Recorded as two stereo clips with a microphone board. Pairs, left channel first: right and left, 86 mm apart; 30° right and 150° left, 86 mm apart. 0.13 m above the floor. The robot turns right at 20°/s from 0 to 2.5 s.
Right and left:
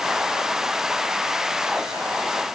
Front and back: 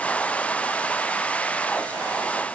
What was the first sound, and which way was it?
Only background noise.